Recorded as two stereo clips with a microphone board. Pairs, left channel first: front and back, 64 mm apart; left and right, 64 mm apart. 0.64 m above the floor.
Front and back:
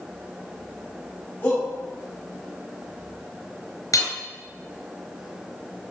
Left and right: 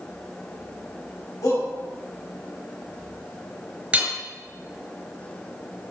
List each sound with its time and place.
1.4 s a shout: 55° left, 4.5 m
3.9 s hammering: 20° right, 4 m